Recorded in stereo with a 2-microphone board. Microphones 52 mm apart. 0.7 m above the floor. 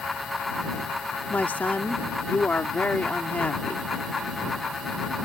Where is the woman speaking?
35° left (ahead or behind).